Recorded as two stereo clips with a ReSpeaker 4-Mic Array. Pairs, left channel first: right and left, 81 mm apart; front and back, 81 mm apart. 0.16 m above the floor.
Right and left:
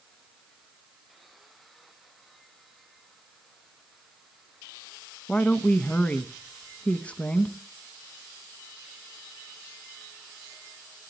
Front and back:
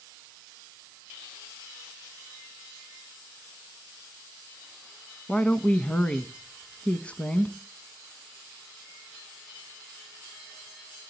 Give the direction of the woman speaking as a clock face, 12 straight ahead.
2 o'clock.